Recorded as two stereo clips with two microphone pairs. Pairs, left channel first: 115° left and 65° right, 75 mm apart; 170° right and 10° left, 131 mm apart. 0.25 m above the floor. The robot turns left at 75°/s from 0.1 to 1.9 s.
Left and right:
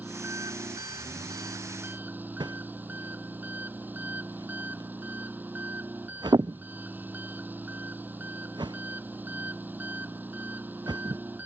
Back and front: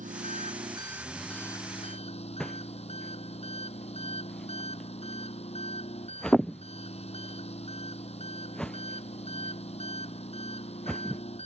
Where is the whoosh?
85° right.